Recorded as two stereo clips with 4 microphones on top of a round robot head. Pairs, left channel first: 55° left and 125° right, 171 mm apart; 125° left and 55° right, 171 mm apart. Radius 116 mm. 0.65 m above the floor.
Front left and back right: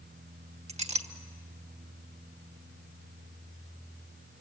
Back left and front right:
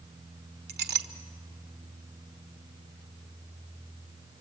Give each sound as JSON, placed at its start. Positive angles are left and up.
{"t": 0.7, "sound": "a clink", "azimuth_deg": -75, "distance_m": 1.3}